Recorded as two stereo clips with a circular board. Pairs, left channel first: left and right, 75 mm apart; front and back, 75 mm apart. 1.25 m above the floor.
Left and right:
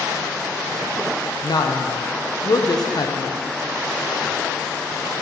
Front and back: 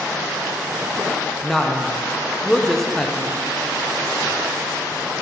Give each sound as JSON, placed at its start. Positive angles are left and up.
{"t": 1.4, "sound": "a woman speaking", "azimuth_deg": 85, "distance_m": 0.6}